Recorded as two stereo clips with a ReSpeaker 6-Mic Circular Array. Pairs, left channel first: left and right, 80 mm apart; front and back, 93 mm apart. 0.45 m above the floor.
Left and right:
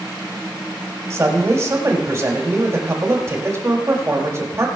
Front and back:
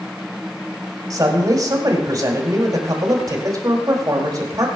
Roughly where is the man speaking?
Behind right.